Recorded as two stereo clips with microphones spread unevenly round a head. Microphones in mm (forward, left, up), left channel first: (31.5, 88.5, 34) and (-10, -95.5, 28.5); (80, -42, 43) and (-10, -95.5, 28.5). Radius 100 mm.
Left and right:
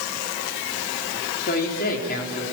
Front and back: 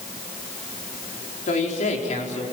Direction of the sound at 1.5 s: 35° left.